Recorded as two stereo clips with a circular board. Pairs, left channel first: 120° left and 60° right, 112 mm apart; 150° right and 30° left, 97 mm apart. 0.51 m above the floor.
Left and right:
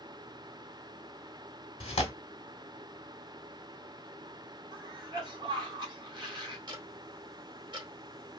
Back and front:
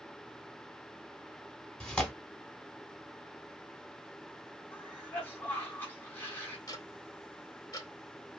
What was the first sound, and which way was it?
Tearing paper, 130° left.